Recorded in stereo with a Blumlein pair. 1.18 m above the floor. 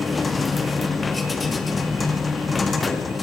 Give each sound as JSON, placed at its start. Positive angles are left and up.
{"t": 0.0, "sound": "a machine running", "azimuth_deg": 15, "distance_m": 1.9}